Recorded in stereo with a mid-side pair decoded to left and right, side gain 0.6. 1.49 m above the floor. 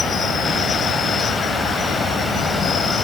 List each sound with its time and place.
0.0 s an insect: 35° left